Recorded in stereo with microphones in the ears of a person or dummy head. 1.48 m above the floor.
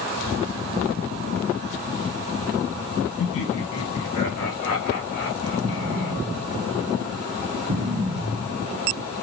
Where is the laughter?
70° left (ahead or behind), 1.0 m.